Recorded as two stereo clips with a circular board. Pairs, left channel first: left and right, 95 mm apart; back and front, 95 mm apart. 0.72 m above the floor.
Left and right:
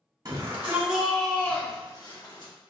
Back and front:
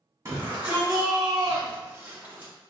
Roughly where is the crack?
No crack in this recording.